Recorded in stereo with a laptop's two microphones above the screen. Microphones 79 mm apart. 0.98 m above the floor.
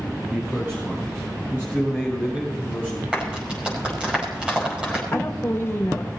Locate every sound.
0.3 s a man speaking: 35° right (ahead or behind), 5 m; by 3.0 s 25° right (ahead or behind), 5.5 m
3.1 s a clap: 15° right (ahead or behind), 5.5 m
5.1 s a woman speaking: 30° left (ahead or behind), 2.5 m